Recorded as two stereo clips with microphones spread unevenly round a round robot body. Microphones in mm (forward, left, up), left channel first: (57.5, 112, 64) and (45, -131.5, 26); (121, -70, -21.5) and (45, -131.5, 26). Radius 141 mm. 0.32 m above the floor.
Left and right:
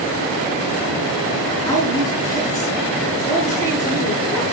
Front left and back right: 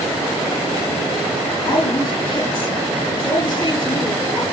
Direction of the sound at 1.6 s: 10° left.